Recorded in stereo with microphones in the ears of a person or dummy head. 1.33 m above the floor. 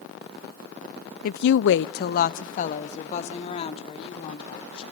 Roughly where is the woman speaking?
Left.